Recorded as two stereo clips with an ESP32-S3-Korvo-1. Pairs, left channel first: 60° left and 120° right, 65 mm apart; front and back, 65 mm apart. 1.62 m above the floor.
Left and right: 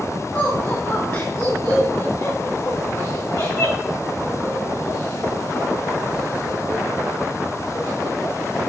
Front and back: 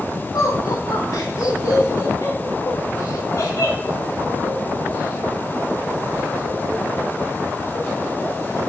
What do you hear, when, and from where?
0.3 s laughter: 10° left, 3 m; by 8.1 s 60° left, 7.5 m